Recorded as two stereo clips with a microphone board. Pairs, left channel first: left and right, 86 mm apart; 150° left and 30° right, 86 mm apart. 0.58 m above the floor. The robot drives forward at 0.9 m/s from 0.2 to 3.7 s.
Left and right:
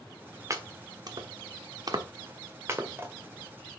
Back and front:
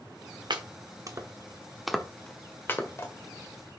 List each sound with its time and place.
0.5 s chopping: 45° right, 1.2 m; by 3.1 s 155° right, 1.8 m